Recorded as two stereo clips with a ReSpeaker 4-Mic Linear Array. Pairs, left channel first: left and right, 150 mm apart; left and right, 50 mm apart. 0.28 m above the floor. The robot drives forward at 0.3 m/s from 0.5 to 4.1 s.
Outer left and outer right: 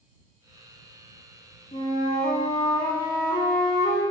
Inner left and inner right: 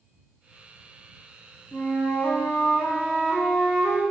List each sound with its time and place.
1.7 s a flute: 50° left (ahead or behind), 0.7 m; by 4.0 s 25° left (ahead or behind), 1.3 m